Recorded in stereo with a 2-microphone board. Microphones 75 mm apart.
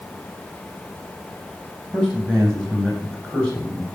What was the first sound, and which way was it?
A man speaking, 5° left (ahead or behind).